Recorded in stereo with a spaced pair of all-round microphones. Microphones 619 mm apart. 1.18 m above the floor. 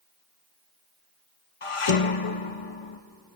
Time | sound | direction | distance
1.6 | dishes clattering | 55° left (ahead or behind) | 0.8 m